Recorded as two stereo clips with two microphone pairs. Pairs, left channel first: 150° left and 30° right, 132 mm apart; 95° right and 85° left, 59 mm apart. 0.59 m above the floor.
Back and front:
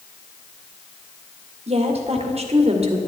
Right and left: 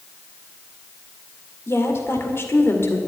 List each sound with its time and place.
1.7 s a woman speaking: 55° right, 2 m